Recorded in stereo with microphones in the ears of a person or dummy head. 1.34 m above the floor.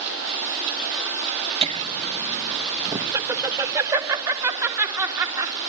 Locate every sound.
1.6 s laughter: 30° right (ahead or behind), 0.6 m; by 5.5 s 10° right (ahead or behind), 4 m